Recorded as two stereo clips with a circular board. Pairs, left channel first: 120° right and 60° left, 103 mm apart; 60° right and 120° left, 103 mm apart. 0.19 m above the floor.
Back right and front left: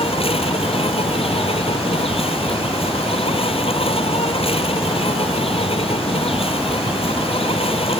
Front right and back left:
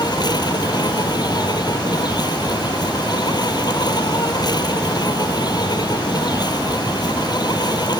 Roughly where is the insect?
Right.